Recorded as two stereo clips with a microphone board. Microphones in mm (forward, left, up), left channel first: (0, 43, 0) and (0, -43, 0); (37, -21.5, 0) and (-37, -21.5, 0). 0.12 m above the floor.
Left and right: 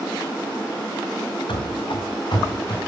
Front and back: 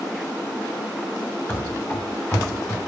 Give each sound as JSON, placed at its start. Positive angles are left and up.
{"t": 1.5, "sound": "running footsteps", "azimuth_deg": 65, "distance_m": 1.3}